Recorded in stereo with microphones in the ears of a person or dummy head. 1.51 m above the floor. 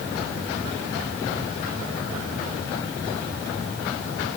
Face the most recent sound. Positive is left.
No sound to turn to.